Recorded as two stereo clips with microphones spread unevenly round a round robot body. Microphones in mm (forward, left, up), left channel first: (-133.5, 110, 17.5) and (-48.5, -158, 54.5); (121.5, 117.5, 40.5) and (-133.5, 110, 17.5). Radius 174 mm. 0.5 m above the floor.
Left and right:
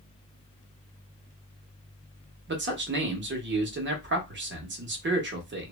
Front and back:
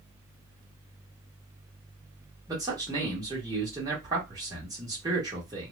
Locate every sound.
2.5 s a man speaking: 115° right, 0.9 m